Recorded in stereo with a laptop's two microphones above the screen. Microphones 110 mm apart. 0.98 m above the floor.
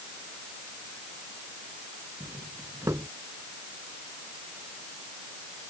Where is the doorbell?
30° right (ahead or behind).